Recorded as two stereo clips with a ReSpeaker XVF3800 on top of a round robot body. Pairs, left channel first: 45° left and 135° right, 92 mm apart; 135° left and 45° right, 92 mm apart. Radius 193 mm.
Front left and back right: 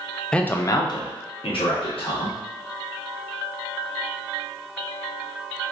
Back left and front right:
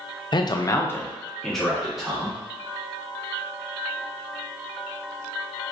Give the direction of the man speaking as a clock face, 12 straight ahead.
8 o'clock.